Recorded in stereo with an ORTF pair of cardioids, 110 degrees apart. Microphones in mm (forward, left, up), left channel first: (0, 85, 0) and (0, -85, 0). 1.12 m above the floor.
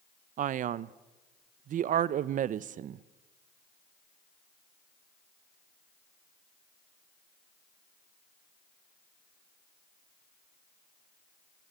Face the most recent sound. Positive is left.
turn(degrees=-55)